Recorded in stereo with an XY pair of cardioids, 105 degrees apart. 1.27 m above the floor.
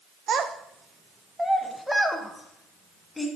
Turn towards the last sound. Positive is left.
turn(degrees=15)